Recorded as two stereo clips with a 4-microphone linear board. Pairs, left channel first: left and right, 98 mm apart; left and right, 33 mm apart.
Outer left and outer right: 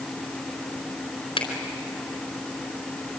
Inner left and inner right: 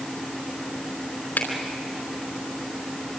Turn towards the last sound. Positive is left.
turn(degrees=60)  # may be behind; listen again after turning